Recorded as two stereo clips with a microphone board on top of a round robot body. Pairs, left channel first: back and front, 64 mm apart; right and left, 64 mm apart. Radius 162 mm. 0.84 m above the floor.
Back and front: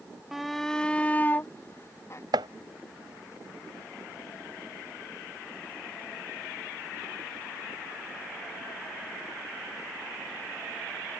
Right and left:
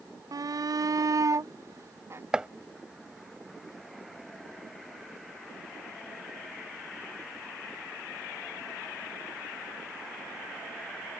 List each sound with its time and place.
0.3 s a shout: 85° left; by 2.2 s 135° left
2.3 s chopping: 10° left